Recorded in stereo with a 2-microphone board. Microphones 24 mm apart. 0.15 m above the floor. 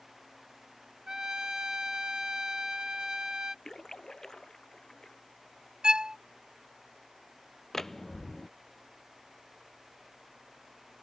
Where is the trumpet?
30° right (ahead or behind).